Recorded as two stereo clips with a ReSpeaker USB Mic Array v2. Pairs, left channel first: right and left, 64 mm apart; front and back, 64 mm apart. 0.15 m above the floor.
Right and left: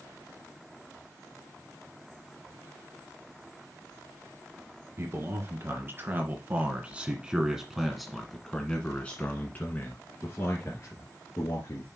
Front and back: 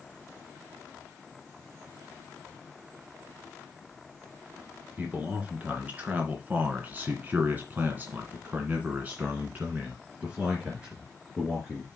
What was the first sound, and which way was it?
A man speaking, 115° left.